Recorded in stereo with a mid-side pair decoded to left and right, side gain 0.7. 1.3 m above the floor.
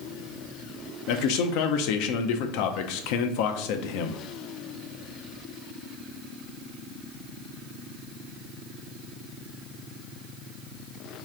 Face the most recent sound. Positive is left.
turn(degrees=70)